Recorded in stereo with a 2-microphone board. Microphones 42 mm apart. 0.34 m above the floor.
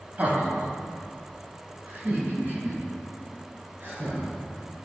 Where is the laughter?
35° right (ahead or behind), 1.8 m; by 4.3 s 40° right (ahead or behind), 5.5 m.